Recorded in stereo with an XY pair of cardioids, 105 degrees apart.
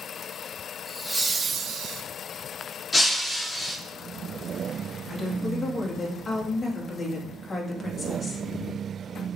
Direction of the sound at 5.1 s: 25° left.